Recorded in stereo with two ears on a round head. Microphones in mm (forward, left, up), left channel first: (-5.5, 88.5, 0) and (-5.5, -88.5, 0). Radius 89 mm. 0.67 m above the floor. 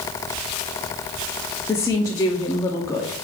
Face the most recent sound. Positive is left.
turn(degrees=15)  # may be behind; listen again after turning